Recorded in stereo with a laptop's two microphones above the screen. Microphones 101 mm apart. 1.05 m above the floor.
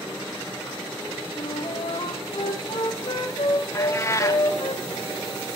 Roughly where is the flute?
Left.